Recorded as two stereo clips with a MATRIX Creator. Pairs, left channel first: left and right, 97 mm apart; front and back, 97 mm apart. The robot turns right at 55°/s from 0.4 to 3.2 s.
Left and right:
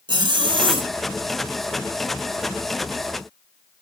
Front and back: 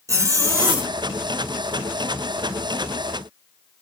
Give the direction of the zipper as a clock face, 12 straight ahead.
4 o'clock.